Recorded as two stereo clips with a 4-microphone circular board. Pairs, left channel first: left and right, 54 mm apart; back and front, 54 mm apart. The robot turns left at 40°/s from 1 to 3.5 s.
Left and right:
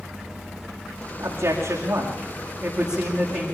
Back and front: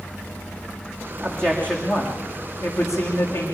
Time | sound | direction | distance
1.2 | a man speaking | 95° right | 7 m